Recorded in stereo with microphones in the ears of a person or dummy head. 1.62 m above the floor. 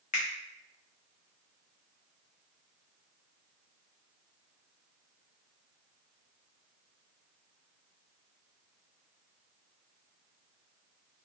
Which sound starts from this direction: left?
A finger snap, at 0.1 s.